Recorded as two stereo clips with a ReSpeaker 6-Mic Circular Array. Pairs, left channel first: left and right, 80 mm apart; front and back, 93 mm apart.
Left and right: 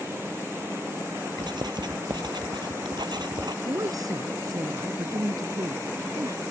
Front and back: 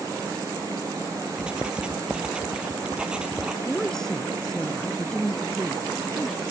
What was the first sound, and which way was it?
Writing, 100° right.